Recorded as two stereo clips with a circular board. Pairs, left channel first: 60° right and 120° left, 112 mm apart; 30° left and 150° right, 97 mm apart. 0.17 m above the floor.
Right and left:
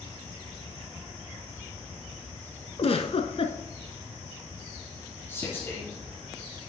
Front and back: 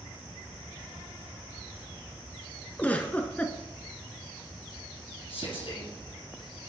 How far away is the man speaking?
About 4 m.